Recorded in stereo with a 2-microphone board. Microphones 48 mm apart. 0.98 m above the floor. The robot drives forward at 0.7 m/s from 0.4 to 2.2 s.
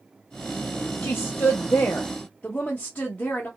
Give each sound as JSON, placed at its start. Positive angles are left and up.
{"t": 1.0, "sound": "a woman speaking", "side_deg": 45, "distance_m": 0.5}